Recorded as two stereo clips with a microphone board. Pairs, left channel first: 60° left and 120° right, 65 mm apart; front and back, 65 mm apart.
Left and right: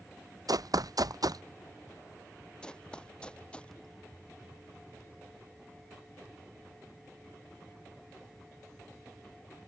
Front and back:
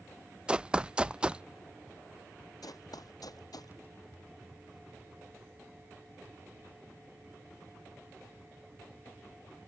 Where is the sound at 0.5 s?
105° right.